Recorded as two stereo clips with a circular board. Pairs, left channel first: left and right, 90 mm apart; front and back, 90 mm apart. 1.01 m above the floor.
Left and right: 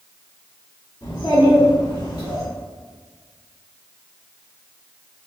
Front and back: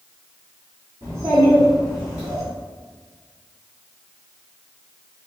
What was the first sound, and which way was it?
A child speaking, 125° left.